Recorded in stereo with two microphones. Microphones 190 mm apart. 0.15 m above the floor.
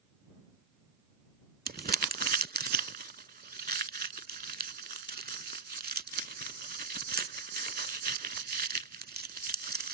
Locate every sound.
1.7 s crumpling: 55° right (ahead or behind)